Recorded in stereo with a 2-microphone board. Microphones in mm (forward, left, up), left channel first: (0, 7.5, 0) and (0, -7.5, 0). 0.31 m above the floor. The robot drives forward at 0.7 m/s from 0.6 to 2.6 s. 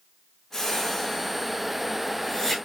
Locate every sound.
0.5 s a whoosh: 30° left (ahead or behind), 4 m; by 2.6 s 25° left (ahead or behind), 5.5 m